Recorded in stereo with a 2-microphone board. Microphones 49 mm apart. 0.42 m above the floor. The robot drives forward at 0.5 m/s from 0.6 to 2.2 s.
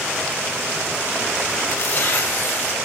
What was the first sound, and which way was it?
Tearing paper, 65° left (ahead or behind).